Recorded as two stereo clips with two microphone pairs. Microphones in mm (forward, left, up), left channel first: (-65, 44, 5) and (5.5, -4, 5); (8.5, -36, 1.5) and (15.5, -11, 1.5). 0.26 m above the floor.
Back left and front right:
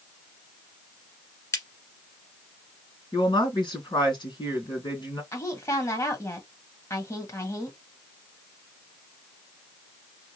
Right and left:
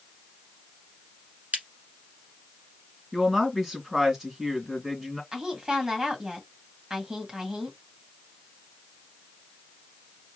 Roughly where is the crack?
Left.